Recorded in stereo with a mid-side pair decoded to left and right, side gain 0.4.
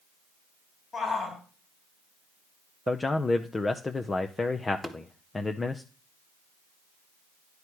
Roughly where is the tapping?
Ahead.